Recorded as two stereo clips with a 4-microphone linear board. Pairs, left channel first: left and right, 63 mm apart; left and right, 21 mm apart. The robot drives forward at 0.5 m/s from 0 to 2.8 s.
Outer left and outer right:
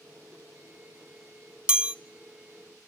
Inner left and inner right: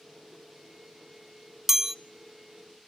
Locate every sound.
1.7 s a chime: 15° right (ahead or behind), 0.7 m; by 1.9 s 20° right (ahead or behind), 0.6 m